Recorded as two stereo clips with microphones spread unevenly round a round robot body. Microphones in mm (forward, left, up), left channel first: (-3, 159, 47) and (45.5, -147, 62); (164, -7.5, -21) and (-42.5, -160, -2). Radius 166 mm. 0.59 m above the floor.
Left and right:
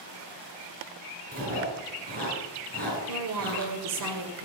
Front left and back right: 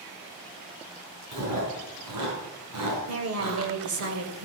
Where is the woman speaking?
120° right, 2.5 m.